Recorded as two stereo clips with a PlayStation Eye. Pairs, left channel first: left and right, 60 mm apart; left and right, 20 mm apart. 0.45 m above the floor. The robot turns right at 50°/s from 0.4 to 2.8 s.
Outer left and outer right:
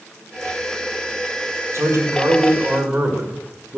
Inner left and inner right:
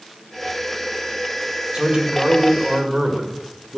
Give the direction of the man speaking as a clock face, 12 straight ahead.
3 o'clock.